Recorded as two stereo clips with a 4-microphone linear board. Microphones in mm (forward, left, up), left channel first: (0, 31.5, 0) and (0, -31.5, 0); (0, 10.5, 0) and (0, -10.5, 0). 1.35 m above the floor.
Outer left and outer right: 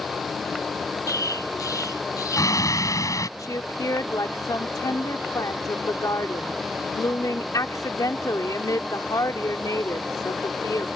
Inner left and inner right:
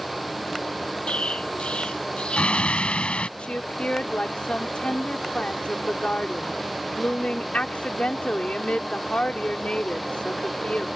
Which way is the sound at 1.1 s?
65° left (ahead or behind).